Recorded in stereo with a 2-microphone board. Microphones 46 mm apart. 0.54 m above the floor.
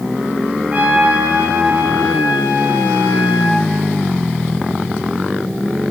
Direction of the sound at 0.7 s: 40° right (ahead or behind).